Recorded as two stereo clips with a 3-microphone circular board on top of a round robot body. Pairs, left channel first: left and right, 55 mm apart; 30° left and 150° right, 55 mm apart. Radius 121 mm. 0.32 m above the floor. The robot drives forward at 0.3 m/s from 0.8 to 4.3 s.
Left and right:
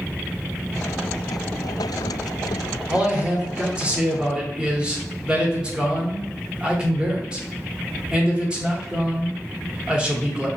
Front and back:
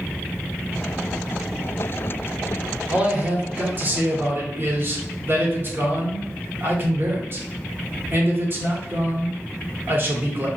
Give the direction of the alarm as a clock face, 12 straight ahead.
I don't hear an alarm.